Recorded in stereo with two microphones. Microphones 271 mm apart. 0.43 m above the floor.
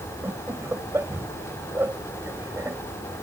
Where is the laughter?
10° right (ahead or behind).